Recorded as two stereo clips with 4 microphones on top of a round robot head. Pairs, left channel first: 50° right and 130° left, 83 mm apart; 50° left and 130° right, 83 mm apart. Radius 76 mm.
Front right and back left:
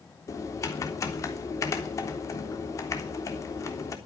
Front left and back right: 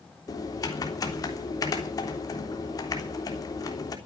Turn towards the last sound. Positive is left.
turn(degrees=5)